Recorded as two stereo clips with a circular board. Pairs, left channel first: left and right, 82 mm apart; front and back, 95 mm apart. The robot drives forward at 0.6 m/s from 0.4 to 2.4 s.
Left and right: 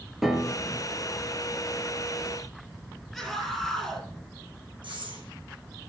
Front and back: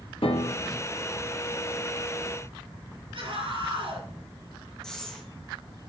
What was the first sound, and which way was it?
A piano, 5° right.